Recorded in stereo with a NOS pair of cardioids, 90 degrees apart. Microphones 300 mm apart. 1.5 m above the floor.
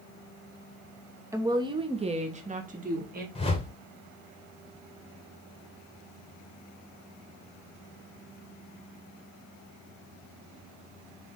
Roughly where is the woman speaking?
Ahead.